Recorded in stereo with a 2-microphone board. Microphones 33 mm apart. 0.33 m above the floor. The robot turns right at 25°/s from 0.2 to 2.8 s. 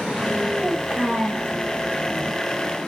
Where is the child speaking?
55° right (ahead or behind), 1.6 m; by 1.5 s 50° right (ahead or behind), 1.6 m.